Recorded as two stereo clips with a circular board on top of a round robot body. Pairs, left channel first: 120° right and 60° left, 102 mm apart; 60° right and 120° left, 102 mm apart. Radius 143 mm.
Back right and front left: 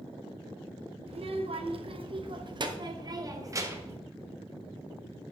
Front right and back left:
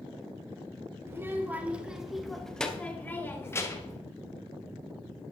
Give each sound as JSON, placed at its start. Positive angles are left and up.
{"t": 1.1, "sound": "a child speaking", "azimuth_deg": 55, "distance_m": 2.0}